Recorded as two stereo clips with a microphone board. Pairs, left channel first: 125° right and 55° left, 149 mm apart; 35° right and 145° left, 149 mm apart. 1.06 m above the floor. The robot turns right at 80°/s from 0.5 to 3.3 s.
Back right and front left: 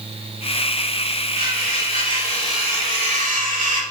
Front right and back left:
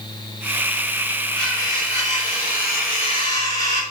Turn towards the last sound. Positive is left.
turn(degrees=30)